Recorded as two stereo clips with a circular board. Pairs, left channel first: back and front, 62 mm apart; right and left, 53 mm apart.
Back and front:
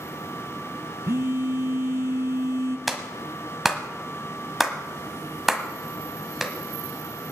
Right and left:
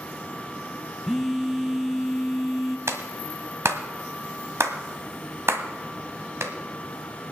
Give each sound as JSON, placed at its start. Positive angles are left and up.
{"t": 1.1, "sound": "a phone buzzing", "azimuth_deg": 10, "distance_m": 0.6}
{"t": 2.9, "sound": "a clap", "azimuth_deg": 85, "distance_m": 1.4}